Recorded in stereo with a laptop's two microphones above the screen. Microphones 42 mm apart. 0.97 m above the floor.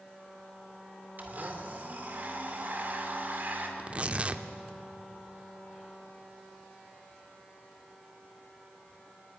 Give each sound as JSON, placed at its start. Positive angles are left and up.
{"t": 1.2, "sound": "a blender", "side_deg": -45, "distance_m": 2.5}
{"t": 3.8, "sound": "tearing paper", "side_deg": -35, "distance_m": 1.2}